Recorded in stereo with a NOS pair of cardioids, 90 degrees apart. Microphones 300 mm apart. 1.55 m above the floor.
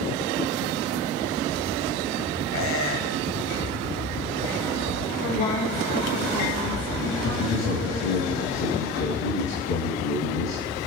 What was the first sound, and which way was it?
A squeak, 45° left.